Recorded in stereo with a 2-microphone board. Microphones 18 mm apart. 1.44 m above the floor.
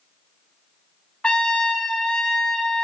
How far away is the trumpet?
About 1.0 m.